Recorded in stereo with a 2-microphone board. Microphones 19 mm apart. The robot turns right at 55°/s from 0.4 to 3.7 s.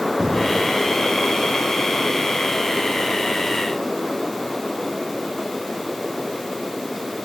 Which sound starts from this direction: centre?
An explosion, at 0.2 s.